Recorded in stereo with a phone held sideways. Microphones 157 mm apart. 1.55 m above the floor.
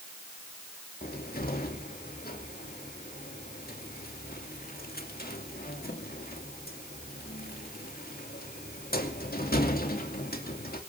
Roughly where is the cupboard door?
Left.